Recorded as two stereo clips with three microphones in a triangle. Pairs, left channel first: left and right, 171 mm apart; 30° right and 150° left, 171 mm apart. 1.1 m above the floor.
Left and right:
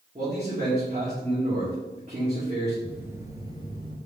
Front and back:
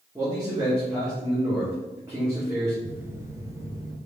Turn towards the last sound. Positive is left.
turn(degrees=-145)